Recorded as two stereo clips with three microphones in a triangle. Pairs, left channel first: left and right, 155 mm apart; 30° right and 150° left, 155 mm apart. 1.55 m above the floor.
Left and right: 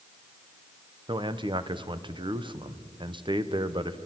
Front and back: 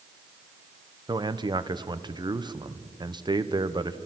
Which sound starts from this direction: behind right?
A man speaking, at 1.1 s.